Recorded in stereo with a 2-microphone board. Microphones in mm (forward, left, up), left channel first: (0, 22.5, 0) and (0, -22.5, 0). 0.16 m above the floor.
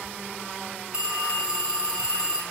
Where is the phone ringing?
20° right (ahead or behind), 1.0 m.